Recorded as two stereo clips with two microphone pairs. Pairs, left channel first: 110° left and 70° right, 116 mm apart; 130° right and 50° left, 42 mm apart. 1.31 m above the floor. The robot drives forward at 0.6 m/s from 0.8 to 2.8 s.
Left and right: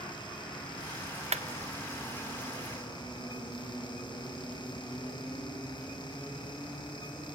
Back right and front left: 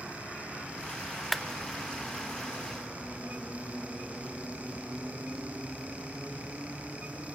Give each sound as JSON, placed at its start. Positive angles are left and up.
{"t": 1.3, "sound": "a clap", "azimuth_deg": -40, "distance_m": 0.7}